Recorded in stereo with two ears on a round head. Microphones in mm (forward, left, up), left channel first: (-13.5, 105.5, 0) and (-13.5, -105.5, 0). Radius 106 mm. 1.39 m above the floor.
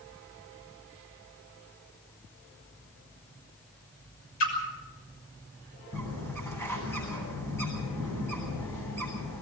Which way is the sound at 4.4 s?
75° left (ahead or behind).